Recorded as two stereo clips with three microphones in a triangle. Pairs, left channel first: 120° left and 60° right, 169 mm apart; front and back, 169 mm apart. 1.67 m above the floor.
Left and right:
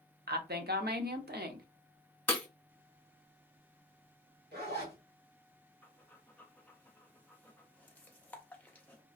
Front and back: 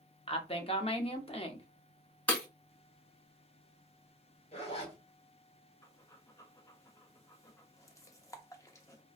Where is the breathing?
50° left, 0.5 m.